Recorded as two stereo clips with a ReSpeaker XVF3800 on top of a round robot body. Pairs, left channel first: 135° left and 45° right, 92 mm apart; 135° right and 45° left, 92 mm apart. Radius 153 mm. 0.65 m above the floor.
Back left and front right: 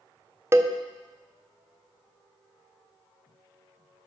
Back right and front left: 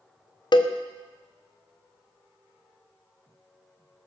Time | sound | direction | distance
0.5 | a cowbell | 105° right | 0.7 m